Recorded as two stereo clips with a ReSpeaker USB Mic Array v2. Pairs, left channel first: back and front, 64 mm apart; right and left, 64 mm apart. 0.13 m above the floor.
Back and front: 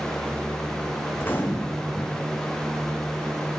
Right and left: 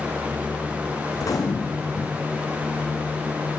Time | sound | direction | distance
1.1 | a gunshot | 120° right | 1.2 m